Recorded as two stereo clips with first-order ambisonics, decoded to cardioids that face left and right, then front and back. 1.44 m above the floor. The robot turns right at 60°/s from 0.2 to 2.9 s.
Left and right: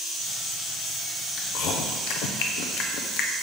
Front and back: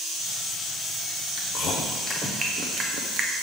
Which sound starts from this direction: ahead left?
Chewing, at 1.4 s.